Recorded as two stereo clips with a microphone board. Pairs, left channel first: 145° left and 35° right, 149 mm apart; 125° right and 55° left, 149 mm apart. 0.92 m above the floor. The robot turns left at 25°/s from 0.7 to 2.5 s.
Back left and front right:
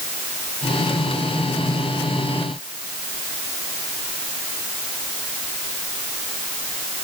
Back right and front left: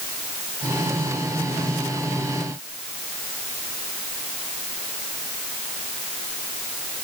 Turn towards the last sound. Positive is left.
No sound to turn to.